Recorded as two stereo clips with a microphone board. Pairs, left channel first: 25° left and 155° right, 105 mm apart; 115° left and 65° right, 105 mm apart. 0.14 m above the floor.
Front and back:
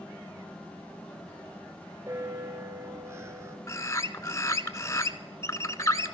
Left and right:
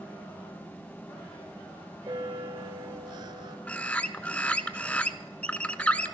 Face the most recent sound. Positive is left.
turn(degrees=45)